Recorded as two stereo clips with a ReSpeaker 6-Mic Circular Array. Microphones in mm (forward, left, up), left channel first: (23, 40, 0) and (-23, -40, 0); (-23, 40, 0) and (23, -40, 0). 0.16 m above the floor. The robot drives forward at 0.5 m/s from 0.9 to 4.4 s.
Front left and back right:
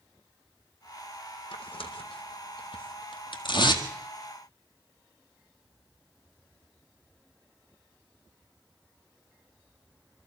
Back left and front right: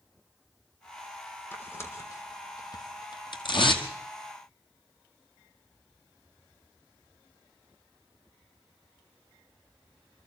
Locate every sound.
1.5 s tearing paper: 55° left, 1.6 m; by 3.9 s 100° left, 1.4 m